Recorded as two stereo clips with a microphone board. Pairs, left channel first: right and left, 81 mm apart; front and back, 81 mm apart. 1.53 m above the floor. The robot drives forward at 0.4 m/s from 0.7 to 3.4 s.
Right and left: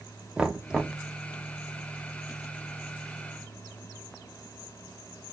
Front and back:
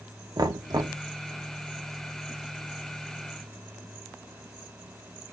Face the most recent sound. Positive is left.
turn(degrees=175)